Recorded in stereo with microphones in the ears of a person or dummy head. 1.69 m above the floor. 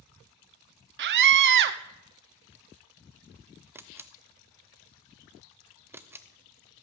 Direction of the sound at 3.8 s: 10° right (ahead or behind).